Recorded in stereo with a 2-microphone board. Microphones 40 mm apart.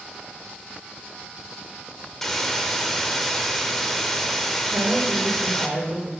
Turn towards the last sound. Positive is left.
turn(degrees=-40)  # may be behind; listen again after turning